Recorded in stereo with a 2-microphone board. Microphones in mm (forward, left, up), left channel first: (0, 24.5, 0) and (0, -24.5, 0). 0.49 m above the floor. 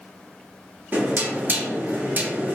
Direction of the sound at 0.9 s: 40° right (ahead or behind).